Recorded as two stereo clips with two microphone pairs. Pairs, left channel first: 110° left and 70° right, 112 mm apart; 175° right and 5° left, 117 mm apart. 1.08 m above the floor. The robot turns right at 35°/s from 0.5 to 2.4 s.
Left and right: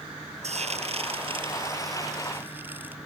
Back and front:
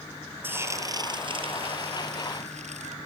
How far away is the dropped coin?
I don't hear a dropped coin.